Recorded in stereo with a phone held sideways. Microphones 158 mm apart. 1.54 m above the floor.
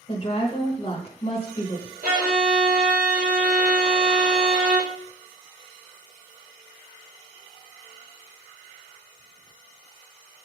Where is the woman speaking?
35° left (ahead or behind), 0.9 m.